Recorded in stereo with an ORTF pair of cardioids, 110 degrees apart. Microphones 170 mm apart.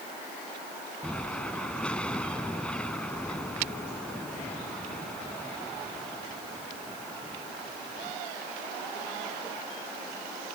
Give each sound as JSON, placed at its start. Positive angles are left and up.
{"t": 1.0, "sound": "an explosion", "azimuth_deg": 5}